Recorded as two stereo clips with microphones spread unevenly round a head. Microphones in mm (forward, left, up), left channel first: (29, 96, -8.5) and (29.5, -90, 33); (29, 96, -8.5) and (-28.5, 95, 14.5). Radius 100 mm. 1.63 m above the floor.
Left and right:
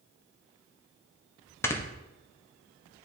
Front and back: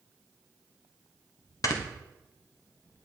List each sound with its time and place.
1.6 s snoring: 15° left, 1.2 m